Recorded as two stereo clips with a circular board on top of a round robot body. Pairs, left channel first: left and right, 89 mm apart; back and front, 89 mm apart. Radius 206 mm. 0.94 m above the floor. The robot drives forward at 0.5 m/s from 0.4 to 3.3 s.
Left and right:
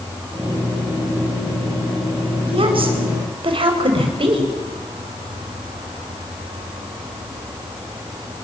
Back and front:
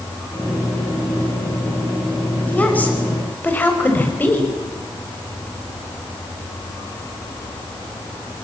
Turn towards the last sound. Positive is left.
turn(degrees=-110)